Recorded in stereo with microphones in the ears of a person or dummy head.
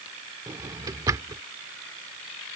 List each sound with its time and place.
0.5 s a drawer: 20° right (ahead or behind)